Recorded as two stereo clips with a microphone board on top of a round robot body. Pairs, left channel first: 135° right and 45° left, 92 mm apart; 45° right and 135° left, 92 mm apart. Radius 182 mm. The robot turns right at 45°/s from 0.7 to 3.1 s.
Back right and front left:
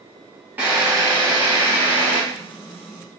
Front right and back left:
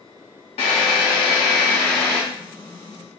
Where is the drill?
25° right, 0.8 m; by 2.2 s 40° left, 0.8 m.